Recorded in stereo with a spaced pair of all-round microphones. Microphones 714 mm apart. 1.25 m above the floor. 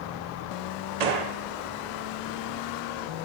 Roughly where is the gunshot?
Right.